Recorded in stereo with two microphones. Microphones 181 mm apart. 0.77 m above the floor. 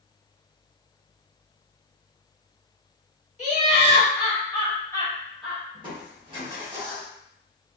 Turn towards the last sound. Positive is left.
turn(degrees=-25)  # may be behind; listen again after turning